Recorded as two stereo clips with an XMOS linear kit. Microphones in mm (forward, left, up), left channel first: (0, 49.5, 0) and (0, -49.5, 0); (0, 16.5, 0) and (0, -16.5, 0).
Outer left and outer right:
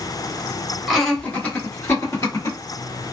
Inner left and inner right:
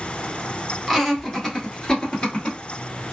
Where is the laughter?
Centre (ahead or behind), 1.1 m; by 2.6 s 35° left (ahead or behind), 1.8 m.